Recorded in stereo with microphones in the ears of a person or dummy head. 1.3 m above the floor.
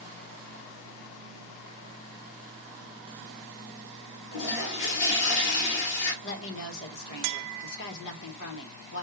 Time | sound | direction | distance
4.3 | a toilet flushing | 60° left (ahead or behind) | 1.5 m
6.2 | a woman speaking | 60° left (ahead or behind) | 1.3 m